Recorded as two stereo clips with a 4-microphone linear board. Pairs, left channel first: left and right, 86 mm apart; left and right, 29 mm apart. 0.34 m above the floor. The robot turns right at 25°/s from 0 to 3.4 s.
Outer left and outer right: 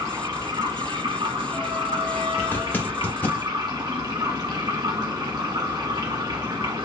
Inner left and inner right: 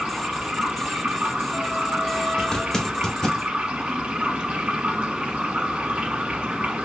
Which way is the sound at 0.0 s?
140° right.